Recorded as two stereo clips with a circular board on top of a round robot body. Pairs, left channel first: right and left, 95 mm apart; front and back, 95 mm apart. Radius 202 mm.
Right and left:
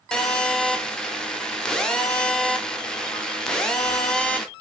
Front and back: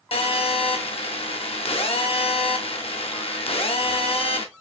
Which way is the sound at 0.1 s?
10° right.